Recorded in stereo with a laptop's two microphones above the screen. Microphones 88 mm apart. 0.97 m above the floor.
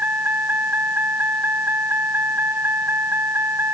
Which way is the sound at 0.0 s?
20° right (ahead or behind).